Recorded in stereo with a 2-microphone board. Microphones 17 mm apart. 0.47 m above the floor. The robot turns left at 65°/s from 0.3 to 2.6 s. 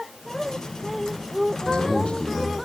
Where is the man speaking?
120° left, 5 m; by 2.5 s 60° left, 5 m.